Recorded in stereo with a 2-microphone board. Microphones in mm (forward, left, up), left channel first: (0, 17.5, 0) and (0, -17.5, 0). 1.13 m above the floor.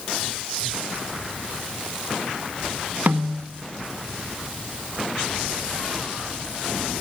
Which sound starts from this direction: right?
A snare drum, at 3.1 s.